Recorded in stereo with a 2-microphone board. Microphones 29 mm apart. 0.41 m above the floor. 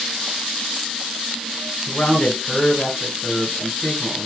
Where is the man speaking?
45° left (ahead or behind), 2.5 m.